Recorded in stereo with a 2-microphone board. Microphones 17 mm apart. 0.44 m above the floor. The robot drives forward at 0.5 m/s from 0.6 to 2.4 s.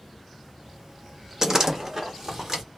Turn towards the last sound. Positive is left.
turn(degrees=-25)  # may be behind; listen again after turning